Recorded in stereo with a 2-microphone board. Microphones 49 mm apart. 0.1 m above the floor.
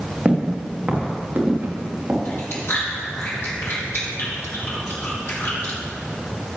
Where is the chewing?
55° left (ahead or behind), 4 m.